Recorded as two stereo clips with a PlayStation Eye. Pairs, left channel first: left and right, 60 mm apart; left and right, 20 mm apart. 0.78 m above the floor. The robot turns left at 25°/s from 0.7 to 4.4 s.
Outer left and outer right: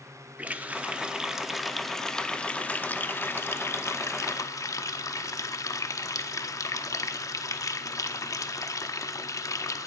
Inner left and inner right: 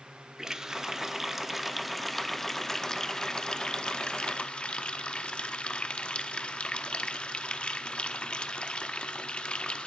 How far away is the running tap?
About 0.8 m.